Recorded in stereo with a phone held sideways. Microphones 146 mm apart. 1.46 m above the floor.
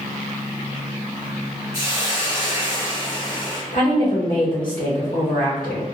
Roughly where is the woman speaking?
Left.